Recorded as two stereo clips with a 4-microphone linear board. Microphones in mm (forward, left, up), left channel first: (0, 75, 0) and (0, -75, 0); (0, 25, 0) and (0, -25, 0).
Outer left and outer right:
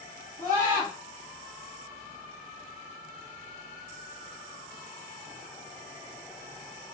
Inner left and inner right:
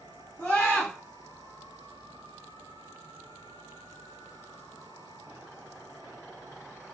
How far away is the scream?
About 1.4 m.